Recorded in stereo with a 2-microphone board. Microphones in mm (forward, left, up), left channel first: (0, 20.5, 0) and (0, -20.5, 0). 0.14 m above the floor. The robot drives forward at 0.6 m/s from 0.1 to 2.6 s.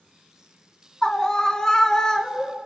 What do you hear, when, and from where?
1.0 s a scream: 15° left (ahead or behind), 1.3 m; by 2.5 s 10° left (ahead or behind), 1.8 m